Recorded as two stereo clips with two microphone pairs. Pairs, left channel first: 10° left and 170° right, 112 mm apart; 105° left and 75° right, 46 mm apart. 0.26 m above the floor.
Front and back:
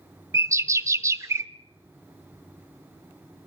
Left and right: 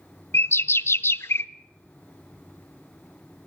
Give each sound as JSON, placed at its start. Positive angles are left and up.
{"t": 0.3, "sound": "a bird", "azimuth_deg": 130, "distance_m": 0.5}